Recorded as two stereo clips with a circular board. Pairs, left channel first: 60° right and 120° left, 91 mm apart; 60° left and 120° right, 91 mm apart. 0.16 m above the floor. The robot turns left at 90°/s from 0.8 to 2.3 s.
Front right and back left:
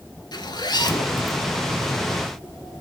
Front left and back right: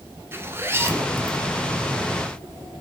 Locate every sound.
0.3 s a zipper: 65° right, 0.9 m; by 1.4 s 115° right, 0.9 m